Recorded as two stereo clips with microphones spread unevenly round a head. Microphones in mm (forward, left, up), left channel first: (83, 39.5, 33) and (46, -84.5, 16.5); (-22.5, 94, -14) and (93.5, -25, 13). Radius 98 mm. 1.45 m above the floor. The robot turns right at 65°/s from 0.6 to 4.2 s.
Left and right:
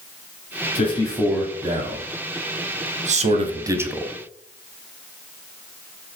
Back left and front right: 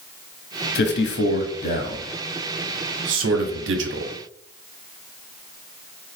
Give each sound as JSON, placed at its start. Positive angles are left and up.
{"t": 0.8, "sound": "a man speaking", "azimuth_deg": 125, "distance_m": 0.6}